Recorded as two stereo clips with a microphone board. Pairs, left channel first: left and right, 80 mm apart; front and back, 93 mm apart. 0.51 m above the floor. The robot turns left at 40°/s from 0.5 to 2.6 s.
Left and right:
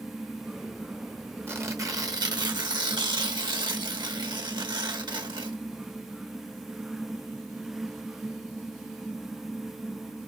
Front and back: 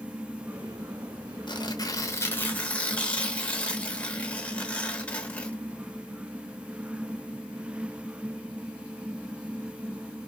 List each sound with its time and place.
1.5 s tearing paper: 30° right, 0.8 m; by 5.6 s 75° right, 0.8 m